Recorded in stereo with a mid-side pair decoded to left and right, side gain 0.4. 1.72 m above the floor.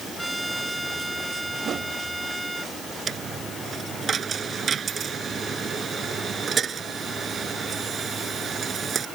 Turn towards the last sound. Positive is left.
turn(degrees=-50)